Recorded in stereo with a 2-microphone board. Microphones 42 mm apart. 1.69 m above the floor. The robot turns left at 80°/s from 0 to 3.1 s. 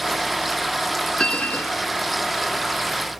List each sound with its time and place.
1.2 s a bell: 160° left; by 1.9 s 110° left